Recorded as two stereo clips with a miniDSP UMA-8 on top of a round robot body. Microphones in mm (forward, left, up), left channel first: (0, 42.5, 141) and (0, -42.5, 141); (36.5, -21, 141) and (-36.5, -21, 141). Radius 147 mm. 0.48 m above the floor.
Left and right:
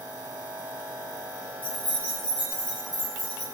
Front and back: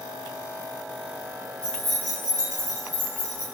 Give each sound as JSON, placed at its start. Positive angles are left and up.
{"t": 1.6, "sound": "keys jangling", "azimuth_deg": 80, "distance_m": 1.3}